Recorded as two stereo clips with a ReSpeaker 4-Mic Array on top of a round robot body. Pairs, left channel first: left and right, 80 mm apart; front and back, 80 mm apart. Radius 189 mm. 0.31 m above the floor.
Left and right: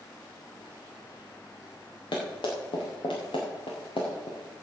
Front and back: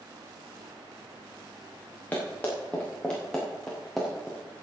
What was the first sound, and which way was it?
Running footsteps, 70° left.